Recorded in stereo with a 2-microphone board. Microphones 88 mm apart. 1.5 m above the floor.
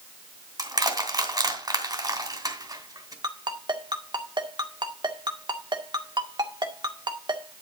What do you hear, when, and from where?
0.6 s crushing: 50° right (ahead or behind), 2.5 m
3.2 s a ringtone: 60° right (ahead or behind), 1.9 m